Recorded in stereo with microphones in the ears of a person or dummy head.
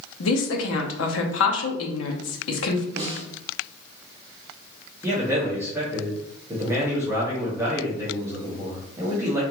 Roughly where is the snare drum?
Right.